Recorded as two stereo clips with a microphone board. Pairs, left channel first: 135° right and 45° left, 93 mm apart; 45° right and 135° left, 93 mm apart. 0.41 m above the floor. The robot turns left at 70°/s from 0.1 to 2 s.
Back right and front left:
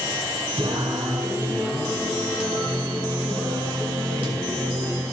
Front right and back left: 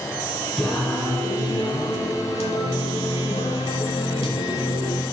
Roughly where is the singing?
Ahead left.